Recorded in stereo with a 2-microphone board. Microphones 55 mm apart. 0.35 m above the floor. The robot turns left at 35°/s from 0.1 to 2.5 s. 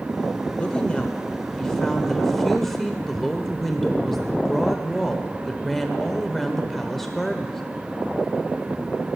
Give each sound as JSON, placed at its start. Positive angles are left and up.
{"t": 0.6, "sound": "a woman speaking", "side_deg": 20, "distance_m": 0.8}